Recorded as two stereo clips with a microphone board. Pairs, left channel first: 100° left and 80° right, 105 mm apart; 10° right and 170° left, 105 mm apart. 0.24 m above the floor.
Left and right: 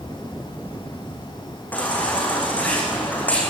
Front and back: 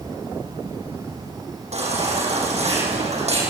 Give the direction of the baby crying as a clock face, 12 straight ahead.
6 o'clock.